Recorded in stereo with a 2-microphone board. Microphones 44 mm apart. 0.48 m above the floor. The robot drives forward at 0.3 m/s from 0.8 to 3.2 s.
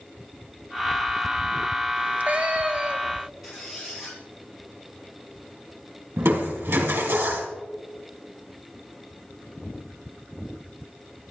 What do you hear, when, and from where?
2.0 s a cat meowing: 35° right (ahead or behind), 1.1 m; by 3.3 s 30° right (ahead or behind), 1.4 m
3.4 s a squeak: 5° right (ahead or behind), 7.5 m
6.2 s crushing: 75° right (ahead or behind), 3.5 m